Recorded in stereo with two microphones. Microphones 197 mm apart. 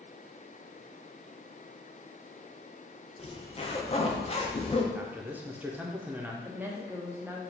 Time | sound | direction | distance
3.2 | a zipper | 30° left (ahead or behind) | 0.5 m
4.9 | a man speaking | 10° right (ahead or behind) | 0.6 m
6.4 | a woman speaking | 10° right (ahead or behind) | 0.8 m